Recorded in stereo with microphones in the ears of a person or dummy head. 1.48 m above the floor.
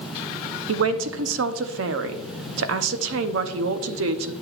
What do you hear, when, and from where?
0.7 s a man speaking: 65° right (ahead or behind), 0.7 m